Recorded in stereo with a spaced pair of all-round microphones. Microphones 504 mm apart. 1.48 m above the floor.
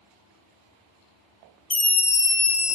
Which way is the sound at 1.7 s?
50° left (ahead or behind).